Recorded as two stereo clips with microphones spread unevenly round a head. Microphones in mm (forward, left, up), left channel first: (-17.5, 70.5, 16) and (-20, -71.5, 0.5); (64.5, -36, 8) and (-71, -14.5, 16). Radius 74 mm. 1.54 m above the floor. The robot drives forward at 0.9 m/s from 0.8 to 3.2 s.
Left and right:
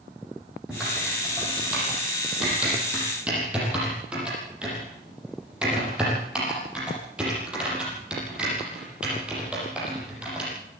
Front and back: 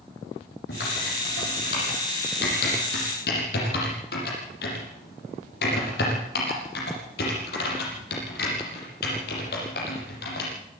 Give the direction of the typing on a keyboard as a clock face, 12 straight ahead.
12 o'clock.